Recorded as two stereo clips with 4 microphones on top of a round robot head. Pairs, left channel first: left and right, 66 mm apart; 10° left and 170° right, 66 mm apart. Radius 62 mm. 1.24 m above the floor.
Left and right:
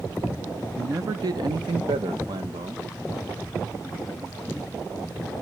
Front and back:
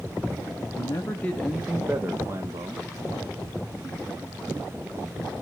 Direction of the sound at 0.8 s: 40° right.